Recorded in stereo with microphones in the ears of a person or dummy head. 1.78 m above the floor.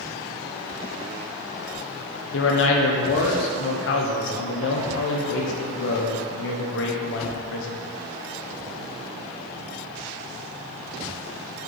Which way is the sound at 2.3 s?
75° left (ahead or behind).